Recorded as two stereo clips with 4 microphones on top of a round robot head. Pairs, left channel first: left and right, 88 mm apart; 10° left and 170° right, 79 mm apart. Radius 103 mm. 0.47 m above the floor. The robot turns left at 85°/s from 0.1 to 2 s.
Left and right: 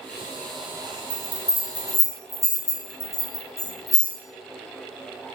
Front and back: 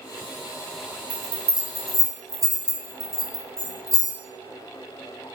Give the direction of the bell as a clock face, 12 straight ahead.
5 o'clock.